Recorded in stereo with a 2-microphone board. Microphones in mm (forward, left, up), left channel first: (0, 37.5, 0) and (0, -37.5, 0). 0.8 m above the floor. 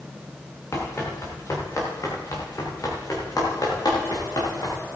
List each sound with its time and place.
0.7 s running footsteps: 35° left (ahead or behind), 4 m; by 4.8 s 60° left (ahead or behind), 5.5 m